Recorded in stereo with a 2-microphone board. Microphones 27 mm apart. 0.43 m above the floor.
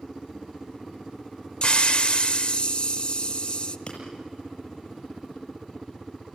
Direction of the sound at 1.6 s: 40° left (ahead or behind).